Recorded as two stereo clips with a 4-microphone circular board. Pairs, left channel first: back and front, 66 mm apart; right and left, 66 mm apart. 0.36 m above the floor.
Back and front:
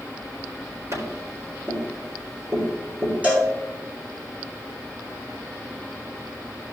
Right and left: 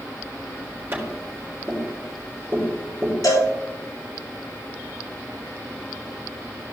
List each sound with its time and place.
0.9 s tapping: 35° left, 4 m
3.2 s a cowbell: 70° right, 3.5 m